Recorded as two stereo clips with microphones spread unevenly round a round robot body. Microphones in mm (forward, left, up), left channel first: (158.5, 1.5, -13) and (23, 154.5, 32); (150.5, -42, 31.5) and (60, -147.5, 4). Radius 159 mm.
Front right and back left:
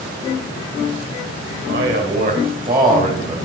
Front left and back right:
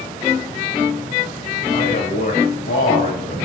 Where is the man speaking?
95° left, 3 m; by 3.4 s 70° left, 3.5 m.